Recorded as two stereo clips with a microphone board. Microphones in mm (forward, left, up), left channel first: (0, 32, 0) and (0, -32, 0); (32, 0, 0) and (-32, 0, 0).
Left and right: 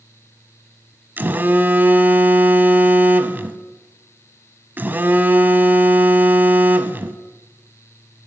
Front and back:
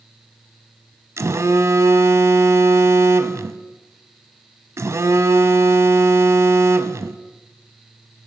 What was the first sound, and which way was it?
A phone buzzing, 145° right.